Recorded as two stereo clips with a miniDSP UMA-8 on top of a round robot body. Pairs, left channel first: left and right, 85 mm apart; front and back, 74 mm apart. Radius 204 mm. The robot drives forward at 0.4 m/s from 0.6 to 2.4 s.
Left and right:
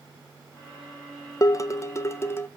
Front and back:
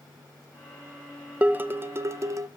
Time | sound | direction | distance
1.4 | dishes clattering | 120° left | 0.8 m